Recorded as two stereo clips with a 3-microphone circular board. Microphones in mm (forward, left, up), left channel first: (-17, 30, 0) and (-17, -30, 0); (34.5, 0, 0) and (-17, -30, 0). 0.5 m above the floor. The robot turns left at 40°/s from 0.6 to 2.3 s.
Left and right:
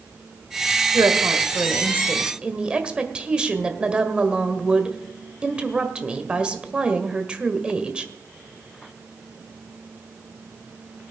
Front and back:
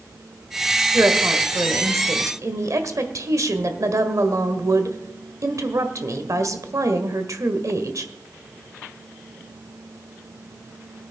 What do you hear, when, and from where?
0.9 s a woman speaking: 105° right, 1.6 m; by 8.1 s 160° right, 1.6 m